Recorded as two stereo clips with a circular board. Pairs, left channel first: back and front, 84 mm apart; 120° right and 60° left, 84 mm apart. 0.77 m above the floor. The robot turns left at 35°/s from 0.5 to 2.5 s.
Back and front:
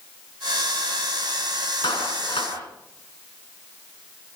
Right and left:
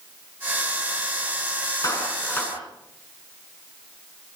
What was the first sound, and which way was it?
A clap, 165° right.